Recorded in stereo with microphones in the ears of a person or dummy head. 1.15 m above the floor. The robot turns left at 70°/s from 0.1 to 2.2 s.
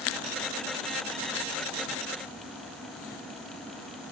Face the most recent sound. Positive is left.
No sound to turn to.